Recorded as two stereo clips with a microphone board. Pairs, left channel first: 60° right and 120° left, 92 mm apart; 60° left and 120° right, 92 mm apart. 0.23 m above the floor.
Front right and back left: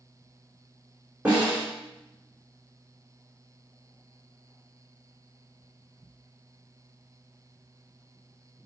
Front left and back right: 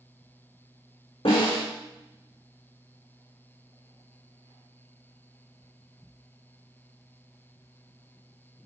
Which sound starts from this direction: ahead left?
A snare drum, at 1.2 s.